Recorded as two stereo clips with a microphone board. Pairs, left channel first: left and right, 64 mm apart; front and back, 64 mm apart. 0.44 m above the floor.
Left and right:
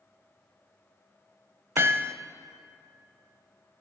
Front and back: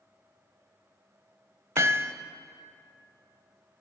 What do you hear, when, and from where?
1.8 s hammering: 140° right, 0.6 m